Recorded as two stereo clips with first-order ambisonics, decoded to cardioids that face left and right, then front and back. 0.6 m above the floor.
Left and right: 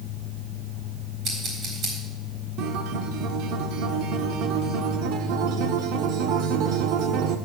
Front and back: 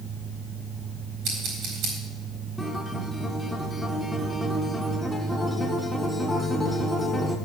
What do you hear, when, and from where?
1.2 s scissors: 145° right, 4 m
2.6 s a guitar: 85° right, 1.1 m